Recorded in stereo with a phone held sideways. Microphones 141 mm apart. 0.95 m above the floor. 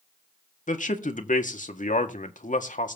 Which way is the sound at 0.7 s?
65° left (ahead or behind).